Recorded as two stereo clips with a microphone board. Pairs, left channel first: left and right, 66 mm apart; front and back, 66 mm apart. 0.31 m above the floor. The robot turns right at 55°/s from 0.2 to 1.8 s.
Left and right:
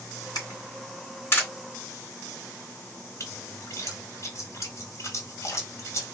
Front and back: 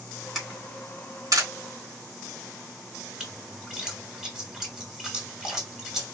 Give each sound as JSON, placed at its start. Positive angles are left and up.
{"t": 0.3, "sound": "a camera shutter", "azimuth_deg": 95, "distance_m": 3.0}
{"t": 3.2, "sound": "a splash", "azimuth_deg": 100, "distance_m": 1.9}